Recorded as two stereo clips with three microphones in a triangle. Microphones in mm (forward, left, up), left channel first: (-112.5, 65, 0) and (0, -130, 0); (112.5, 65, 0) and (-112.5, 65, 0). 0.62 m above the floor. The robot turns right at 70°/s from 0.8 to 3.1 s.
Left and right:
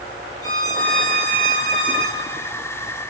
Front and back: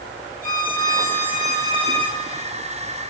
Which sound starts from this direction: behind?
A violin, at 0.4 s.